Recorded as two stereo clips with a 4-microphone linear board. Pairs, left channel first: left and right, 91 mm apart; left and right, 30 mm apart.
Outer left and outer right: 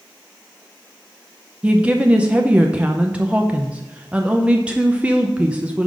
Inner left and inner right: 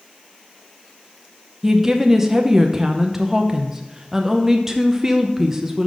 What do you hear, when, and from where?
1.6 s a woman speaking: 15° right (ahead or behind), 0.6 m